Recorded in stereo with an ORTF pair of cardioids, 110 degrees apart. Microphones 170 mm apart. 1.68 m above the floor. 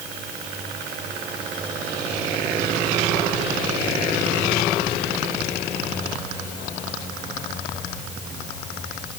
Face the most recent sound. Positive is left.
No sound to turn to.